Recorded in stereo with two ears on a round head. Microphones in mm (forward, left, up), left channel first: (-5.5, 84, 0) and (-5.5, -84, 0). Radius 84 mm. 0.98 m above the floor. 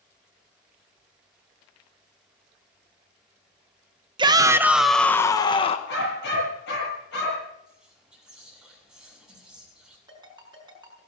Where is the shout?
25° right (ahead or behind), 1.0 m; by 5.8 s 35° left (ahead or behind), 1.0 m.